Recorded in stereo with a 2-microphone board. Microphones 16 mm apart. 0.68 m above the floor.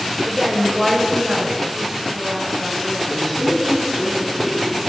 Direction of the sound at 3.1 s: 35° left (ahead or behind).